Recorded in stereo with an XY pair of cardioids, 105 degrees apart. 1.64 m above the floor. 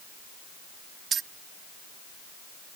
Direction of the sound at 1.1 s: 55° right.